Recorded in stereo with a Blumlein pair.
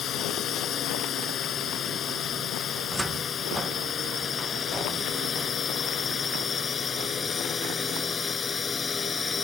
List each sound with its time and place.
0.0 s a drone: 25° left; by 9.4 s 15° left
2.8 s a cupboard door: 10° right